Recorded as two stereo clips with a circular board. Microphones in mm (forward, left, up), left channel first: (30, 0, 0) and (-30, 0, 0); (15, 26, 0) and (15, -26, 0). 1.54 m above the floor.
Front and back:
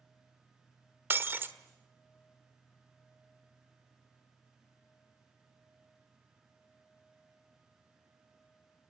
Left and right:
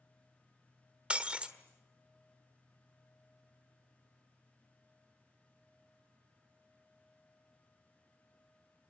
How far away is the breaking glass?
About 1.5 m.